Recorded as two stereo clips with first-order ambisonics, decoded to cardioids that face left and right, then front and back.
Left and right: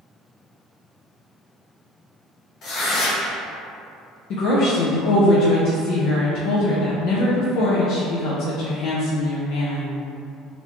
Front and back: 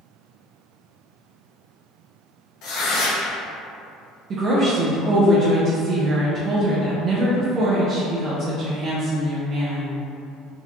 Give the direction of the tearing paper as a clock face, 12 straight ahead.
11 o'clock.